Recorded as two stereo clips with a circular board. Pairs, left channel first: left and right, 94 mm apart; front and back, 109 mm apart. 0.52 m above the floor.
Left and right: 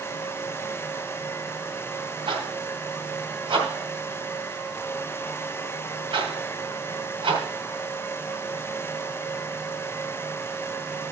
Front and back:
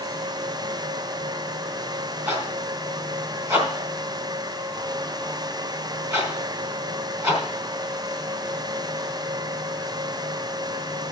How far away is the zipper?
About 3.5 m.